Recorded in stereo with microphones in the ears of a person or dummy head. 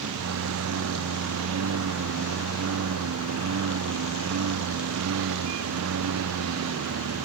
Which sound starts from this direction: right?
A lawn mower, at 0.0 s.